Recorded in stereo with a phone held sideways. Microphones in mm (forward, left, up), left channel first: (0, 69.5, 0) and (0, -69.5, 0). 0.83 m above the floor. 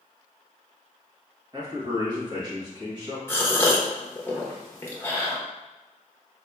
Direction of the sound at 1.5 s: 30° right (ahead or behind).